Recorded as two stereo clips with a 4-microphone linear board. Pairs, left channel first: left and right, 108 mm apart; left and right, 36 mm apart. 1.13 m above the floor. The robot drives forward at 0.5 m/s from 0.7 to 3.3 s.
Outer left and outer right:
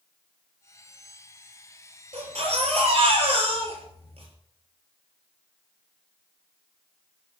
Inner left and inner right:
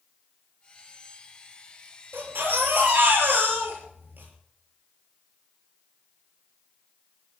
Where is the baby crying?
70° right (ahead or behind), 7 m; by 4.3 s 65° right (ahead or behind), 7 m.